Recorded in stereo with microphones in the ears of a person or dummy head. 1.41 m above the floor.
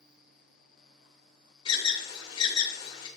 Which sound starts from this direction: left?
An alarm, at 1.6 s.